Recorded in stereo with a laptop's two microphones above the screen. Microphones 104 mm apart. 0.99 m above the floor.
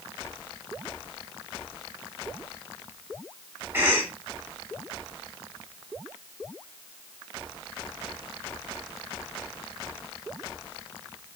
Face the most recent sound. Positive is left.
turn(degrees=-20)  # may be behind; listen again after turning